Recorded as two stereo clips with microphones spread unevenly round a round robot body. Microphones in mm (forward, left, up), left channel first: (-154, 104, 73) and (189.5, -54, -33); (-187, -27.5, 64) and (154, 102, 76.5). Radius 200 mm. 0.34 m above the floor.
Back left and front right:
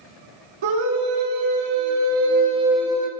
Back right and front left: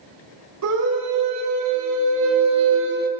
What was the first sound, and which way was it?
A scream, 25° right.